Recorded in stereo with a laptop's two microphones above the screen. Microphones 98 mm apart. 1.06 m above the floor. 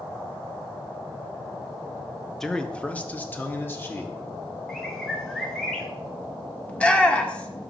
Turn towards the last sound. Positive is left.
turn(degrees=15)  # may be behind; listen again after turning